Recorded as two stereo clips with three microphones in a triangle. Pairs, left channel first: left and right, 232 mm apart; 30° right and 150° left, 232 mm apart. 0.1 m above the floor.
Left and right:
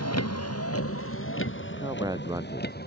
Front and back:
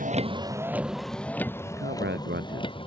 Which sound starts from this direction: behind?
A man speaking, at 1.6 s.